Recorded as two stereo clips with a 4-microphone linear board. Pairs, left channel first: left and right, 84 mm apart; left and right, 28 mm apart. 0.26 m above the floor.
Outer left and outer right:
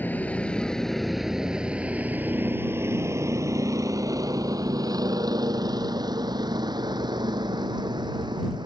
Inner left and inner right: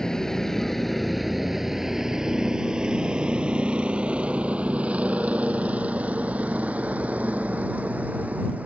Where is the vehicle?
20° left (ahead or behind); by 8.7 s 65° right (ahead or behind).